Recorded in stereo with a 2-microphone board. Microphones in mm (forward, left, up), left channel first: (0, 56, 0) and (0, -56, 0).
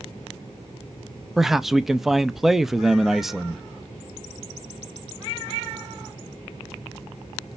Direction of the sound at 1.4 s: 5° right (ahead or behind).